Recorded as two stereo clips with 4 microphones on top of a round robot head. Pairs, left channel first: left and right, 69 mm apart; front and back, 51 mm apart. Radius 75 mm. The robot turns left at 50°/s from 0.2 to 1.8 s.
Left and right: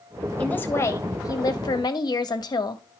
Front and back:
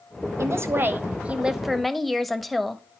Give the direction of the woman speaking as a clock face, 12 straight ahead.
7 o'clock.